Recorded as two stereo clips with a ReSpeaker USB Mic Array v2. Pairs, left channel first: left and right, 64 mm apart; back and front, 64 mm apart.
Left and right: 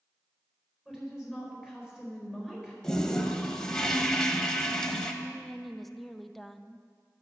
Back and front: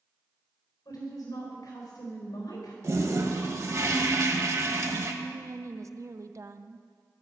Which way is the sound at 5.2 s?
Straight ahead.